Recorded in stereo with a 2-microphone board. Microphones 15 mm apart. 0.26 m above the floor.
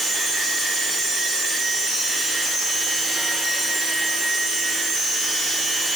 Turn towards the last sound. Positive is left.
No sound to turn to.